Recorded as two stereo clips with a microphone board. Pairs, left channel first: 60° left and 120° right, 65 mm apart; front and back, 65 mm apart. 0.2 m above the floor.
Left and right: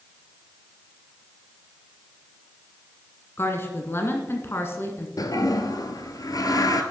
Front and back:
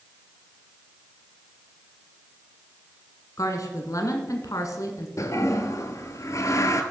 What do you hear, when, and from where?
3.4 s a woman speaking: 15° left, 1.8 m
5.2 s a toilet flushing: 35° left, 1.0 m